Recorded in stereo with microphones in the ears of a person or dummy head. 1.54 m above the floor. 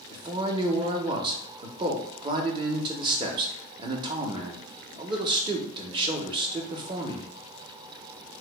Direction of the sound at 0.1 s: 30° right (ahead or behind).